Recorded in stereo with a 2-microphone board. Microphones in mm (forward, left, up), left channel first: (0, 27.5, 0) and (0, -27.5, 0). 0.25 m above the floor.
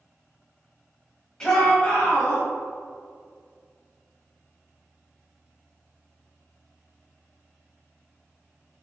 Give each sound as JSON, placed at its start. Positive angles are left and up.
{"t": 1.4, "sound": "a shout", "side_deg": 10, "distance_m": 1.4}